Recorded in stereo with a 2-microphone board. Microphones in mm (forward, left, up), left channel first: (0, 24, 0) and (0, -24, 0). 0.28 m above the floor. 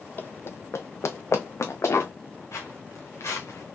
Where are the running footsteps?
45° left (ahead or behind), 0.6 m; by 2.1 s 80° left, 1.5 m.